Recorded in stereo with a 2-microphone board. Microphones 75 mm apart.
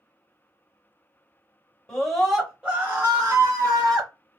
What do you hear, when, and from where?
1.9 s a scream: 10° left (ahead or behind), 1.0 m; by 4.1 s 50° right (ahead or behind), 1.4 m